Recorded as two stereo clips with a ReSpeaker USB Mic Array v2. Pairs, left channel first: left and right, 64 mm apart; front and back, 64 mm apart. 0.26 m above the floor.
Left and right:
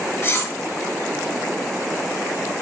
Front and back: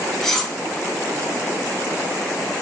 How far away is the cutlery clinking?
About 0.9 m.